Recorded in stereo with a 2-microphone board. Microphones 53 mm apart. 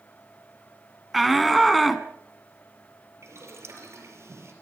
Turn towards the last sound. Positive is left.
turn(degrees=-65)  # may be behind; listen again after turning